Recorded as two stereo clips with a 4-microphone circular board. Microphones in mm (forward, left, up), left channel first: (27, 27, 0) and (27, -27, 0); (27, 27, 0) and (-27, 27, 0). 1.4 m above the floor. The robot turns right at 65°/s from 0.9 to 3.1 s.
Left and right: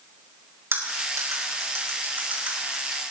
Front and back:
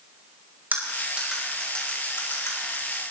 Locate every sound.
0.7 s cutlery clinking: 125° right, 4.5 m; by 3.0 s 15° left, 4.5 m